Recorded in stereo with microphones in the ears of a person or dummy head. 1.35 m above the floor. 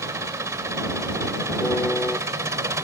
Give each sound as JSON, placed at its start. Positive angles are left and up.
{"t": 0.0, "sound": "an engine running", "side_deg": -10}
{"t": 1.6, "sound": "a piano", "side_deg": 5}